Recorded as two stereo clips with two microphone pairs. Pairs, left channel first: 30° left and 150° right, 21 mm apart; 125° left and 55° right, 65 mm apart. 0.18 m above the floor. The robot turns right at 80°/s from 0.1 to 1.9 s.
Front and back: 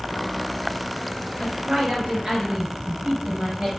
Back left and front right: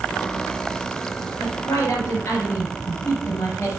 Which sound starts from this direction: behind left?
A woman speaking, at 1.4 s.